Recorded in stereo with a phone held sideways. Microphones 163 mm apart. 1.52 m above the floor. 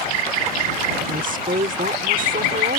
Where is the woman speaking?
60° right (ahead or behind).